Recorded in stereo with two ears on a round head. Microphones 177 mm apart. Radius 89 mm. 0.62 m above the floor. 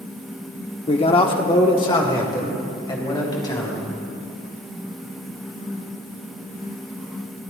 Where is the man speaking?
30° left (ahead or behind), 0.9 m; by 3.9 s 20° left (ahead or behind), 4 m.